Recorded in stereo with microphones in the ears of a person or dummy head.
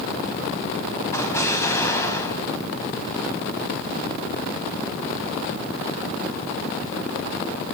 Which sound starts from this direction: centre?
An explosion, at 1.1 s.